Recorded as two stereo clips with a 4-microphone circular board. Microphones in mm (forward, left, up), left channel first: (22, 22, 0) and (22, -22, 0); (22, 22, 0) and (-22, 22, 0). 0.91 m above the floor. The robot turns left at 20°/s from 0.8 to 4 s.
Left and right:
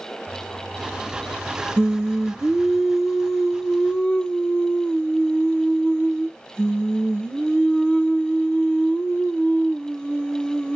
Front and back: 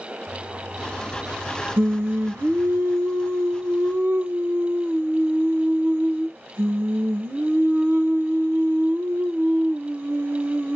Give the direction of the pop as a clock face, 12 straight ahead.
I don't hear a pop.